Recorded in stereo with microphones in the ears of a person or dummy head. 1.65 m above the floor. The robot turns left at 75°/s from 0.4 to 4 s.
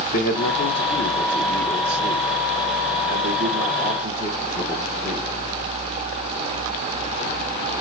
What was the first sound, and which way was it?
A man speaking, 100° left.